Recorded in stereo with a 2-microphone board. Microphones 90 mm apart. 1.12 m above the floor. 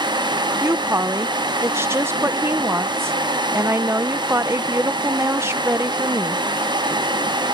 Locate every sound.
0.6 s a woman speaking: 30° right (ahead or behind)